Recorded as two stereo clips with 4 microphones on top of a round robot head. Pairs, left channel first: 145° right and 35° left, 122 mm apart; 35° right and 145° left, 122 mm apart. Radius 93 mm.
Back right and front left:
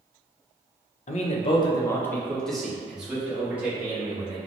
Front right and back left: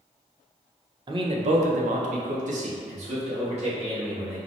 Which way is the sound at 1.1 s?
165° right.